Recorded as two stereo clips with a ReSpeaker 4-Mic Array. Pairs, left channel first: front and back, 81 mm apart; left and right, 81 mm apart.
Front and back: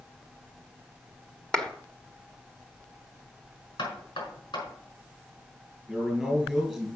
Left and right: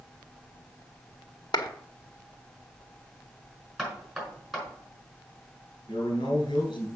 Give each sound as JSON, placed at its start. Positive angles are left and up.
{"t": 1.5, "sound": "a clap", "azimuth_deg": 75, "distance_m": 1.3}
{"t": 3.8, "sound": "knocking", "azimuth_deg": 0, "distance_m": 5.0}
{"t": 5.9, "sound": "a man speaking", "azimuth_deg": 85, "distance_m": 4.0}